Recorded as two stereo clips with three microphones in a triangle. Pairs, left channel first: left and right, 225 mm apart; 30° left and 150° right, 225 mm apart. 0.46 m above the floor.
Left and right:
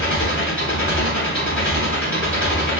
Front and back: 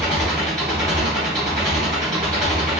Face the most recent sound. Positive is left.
turn(degrees=115)